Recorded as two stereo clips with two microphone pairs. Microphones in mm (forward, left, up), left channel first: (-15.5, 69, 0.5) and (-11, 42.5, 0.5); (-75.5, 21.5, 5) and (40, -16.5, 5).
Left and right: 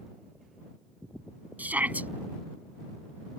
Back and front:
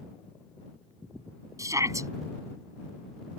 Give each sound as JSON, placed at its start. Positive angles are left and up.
{"t": 1.6, "sound": "a shout", "azimuth_deg": -80}